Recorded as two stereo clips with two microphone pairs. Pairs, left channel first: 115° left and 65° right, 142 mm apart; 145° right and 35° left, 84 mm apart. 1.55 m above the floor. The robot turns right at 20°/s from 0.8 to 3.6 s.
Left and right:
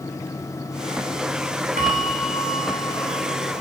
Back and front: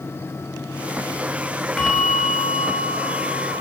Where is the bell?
55° right, 3 m; by 3.6 s 20° right, 3 m.